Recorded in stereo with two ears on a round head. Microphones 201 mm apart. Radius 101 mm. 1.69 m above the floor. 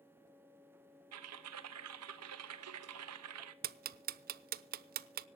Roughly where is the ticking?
Right.